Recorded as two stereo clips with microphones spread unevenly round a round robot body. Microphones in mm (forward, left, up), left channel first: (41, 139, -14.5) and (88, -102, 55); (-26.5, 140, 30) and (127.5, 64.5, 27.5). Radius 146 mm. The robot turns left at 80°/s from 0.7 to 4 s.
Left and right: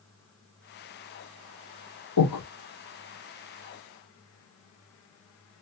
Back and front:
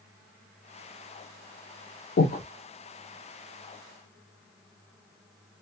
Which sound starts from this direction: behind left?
Breathing, at 2.2 s.